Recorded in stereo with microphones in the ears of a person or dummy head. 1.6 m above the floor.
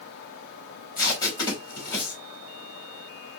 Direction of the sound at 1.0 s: 15° left (ahead or behind).